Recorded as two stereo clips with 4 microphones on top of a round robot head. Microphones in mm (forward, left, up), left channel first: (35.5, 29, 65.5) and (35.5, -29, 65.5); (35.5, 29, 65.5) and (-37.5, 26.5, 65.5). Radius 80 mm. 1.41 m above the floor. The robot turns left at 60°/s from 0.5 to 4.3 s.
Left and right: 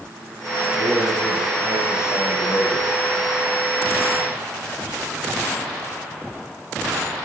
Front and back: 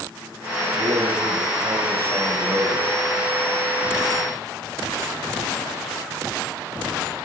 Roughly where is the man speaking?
Behind right.